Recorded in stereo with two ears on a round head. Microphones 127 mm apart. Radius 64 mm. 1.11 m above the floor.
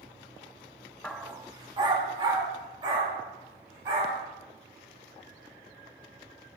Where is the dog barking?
5° left (ahead or behind), 0.5 m; by 4.2 s 35° right (ahead or behind), 4 m.